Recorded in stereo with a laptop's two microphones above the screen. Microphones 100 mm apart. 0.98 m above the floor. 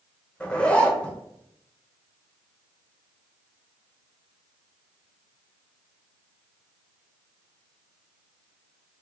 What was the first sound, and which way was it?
A zipper, 10° left (ahead or behind).